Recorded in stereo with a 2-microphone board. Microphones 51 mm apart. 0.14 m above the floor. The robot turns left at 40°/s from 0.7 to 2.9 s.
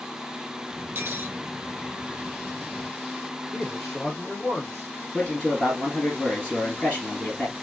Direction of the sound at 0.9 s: 55° right (ahead or behind).